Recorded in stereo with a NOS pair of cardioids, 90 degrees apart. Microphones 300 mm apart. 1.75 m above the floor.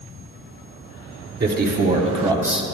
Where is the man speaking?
35° right, 1.8 m; by 2.6 s straight ahead, 0.9 m.